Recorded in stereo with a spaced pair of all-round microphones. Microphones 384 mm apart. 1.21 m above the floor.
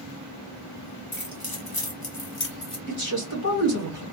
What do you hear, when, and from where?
1.1 s keys jangling: 65° left (ahead or behind), 1.2 m; by 2.8 s 40° left (ahead or behind), 0.8 m
2.9 s a man speaking: 70° left (ahead or behind), 2 m